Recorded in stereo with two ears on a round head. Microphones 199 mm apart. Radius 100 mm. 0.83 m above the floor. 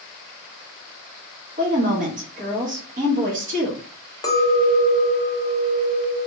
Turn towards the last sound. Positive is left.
turn(degrees=15)  # may be behind; listen again after turning